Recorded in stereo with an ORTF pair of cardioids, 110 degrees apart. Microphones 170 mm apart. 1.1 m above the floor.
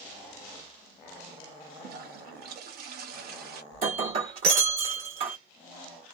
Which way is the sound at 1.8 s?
65° right.